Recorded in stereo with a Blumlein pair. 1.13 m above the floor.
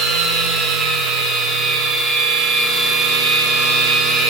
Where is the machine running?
20° right, 2.0 m.